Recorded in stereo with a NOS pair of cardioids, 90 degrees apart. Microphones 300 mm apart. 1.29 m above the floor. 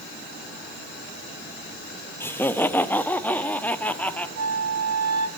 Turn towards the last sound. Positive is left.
turn(degrees=-55)